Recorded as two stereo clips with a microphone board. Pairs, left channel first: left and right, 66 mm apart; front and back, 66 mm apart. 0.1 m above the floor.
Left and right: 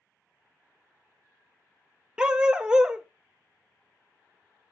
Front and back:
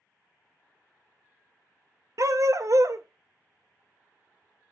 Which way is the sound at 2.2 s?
170° right.